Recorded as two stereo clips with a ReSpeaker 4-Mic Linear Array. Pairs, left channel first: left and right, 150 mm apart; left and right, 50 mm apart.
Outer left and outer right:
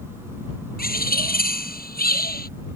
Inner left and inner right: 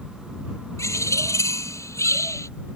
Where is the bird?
80° left.